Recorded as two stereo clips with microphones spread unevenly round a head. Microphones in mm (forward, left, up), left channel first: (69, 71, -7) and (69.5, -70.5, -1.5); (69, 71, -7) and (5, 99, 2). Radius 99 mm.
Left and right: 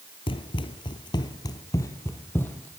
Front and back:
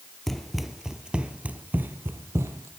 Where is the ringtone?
I don't hear a ringtone.